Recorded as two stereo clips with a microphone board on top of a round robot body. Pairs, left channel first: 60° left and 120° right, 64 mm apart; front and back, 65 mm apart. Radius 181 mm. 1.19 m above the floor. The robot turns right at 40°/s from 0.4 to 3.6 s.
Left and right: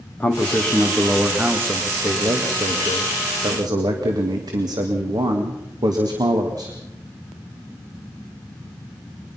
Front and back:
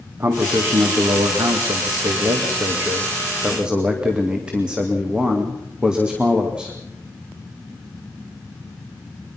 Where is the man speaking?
130° left, 2.5 m; by 6.8 s 105° right, 2.5 m.